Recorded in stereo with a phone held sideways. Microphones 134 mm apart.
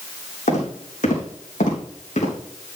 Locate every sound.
0.5 s footsteps: 70° left (ahead or behind), 4.5 m; by 2.4 s 65° left (ahead or behind), 3.5 m